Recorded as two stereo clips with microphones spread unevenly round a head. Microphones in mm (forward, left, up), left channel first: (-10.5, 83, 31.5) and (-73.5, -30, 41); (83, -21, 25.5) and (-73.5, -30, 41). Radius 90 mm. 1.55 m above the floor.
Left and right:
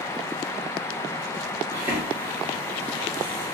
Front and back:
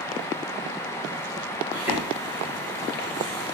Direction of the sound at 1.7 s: 100° right.